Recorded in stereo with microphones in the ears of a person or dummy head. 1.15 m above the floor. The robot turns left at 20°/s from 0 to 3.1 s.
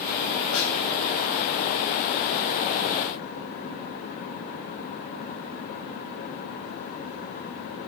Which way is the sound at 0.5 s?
75° left (ahead or behind).